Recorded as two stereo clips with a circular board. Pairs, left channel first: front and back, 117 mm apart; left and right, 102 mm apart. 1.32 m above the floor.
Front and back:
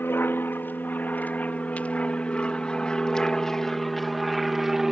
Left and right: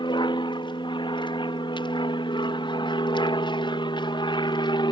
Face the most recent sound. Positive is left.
turn(degrees=95)